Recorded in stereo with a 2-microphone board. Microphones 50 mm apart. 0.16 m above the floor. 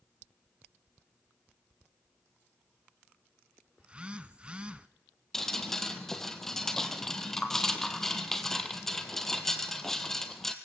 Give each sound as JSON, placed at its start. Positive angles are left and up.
{"t": 3.8, "sound": "a phone buzzing", "side_deg": -20, "distance_m": 0.7}
{"t": 5.3, "sound": "dripping", "side_deg": 10, "distance_m": 1.4}